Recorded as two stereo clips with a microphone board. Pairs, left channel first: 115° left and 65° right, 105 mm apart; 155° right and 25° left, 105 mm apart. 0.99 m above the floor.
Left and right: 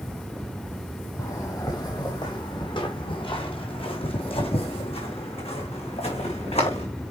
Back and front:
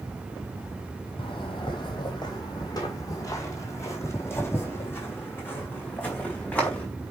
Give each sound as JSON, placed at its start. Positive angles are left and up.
{"t": 1.2, "sound": "footsteps", "azimuth_deg": 170, "distance_m": 2.5}